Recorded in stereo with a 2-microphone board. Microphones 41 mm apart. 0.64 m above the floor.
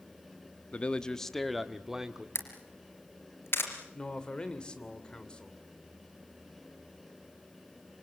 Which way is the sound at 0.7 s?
30° left (ahead or behind).